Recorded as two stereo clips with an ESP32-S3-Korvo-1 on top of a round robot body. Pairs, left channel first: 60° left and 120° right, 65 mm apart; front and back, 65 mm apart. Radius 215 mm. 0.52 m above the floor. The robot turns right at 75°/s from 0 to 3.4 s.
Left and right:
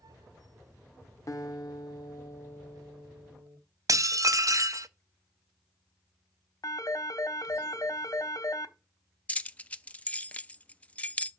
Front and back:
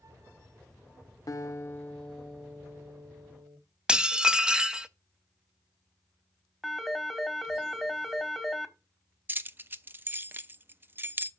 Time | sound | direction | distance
1.3 | a guitar | 25° left | 1.7 m
3.9 | dishes clattering | 105° right | 0.8 m
6.6 | a phone ringing | 95° left | 1.3 m
9.3 | keys jangling | 130° left | 0.7 m